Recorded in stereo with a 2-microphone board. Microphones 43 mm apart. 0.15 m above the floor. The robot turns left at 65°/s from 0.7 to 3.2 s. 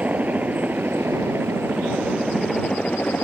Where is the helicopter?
35° right (ahead or behind); by 3.2 s 40° left (ahead or behind).